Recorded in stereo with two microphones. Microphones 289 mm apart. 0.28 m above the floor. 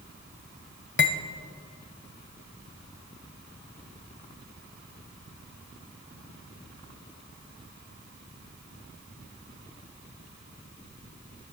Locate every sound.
1.0 s cutlery clinking: 45° left (ahead or behind), 0.6 m